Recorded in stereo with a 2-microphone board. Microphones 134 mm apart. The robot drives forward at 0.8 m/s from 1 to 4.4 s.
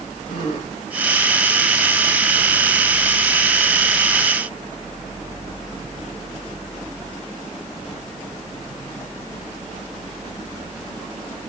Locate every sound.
0.3 s a gasp: 65° left (ahead or behind), 8 m